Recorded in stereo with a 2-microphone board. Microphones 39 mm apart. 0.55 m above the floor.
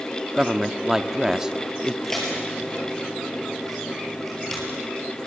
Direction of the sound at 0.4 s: 15° right (ahead or behind).